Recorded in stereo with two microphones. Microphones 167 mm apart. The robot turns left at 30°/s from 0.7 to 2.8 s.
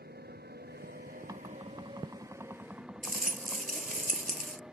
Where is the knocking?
20° right (ahead or behind); by 3.7 s 15° right (ahead or behind).